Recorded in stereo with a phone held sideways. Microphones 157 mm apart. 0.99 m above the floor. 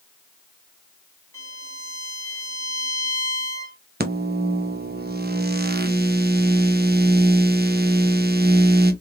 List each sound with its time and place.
1.3 s a violin: 20° left (ahead or behind), 1.3 m
4.0 s a microwave: 85° right, 0.6 m